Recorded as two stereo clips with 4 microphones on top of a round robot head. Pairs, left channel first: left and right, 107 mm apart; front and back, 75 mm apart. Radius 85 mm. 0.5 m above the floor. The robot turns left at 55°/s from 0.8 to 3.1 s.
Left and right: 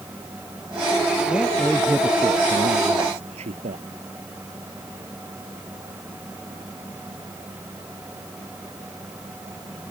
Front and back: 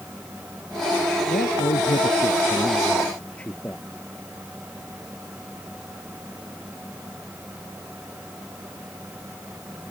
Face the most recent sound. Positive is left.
turn(degrees=-75)